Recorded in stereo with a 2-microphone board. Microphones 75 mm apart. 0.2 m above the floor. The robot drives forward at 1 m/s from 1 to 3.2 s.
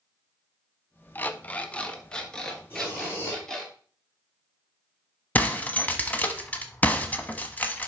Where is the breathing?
30° left (ahead or behind), 4 m.